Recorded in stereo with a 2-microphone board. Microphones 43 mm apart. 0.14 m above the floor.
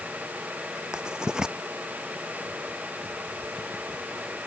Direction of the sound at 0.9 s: 20° right (ahead or behind).